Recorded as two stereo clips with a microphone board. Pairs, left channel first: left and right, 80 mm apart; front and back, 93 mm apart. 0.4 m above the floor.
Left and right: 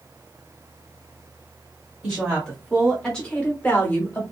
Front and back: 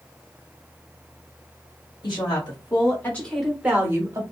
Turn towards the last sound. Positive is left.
turn(degrees=145)